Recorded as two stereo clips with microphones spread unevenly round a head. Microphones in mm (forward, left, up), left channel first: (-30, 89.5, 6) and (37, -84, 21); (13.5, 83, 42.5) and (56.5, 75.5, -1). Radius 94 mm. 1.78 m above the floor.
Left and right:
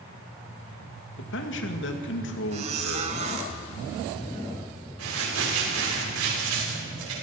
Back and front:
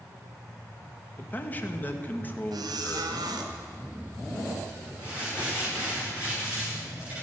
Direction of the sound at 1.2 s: 140° left.